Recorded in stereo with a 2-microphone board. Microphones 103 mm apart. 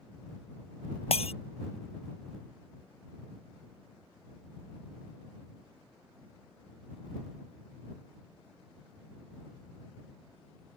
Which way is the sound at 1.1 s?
75° left (ahead or behind).